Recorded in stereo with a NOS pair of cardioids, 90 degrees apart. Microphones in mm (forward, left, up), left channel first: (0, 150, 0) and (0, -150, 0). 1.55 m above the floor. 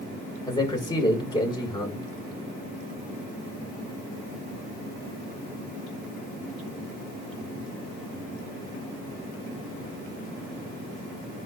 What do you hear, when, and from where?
0.5 s a man speaking: 15° left, 6 m